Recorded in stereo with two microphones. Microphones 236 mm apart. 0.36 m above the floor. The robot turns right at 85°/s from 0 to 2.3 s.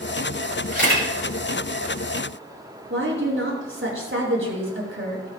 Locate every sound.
0.7 s a camera shutter: 135° right, 6 m; by 1.1 s 105° right, 6 m
2.9 s a woman speaking: 60° right (ahead or behind), 4.5 m